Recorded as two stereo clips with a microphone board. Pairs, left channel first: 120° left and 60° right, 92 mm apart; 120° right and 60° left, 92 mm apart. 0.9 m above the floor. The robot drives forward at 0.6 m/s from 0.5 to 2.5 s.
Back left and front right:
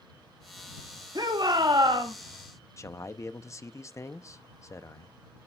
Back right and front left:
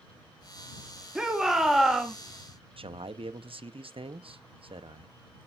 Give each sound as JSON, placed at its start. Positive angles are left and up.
{"t": 1.1, "sound": "a shout", "azimuth_deg": -20, "distance_m": 2.0}
{"t": 2.8, "sound": "a man speaking", "azimuth_deg": 65, "distance_m": 0.7}